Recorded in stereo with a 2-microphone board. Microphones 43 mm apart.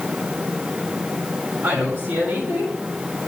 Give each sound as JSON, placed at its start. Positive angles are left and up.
{"t": 1.6, "sound": "a woman speaking", "side_deg": -80, "distance_m": 4.5}